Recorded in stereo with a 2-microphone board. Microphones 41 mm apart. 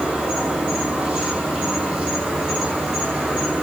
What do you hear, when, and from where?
0.0 s an insect: 20° right (ahead or behind), 3.5 m